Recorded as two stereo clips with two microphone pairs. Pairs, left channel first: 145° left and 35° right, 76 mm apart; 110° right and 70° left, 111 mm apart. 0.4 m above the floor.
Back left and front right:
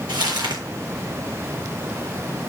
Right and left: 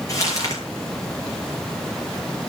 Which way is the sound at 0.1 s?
55° right.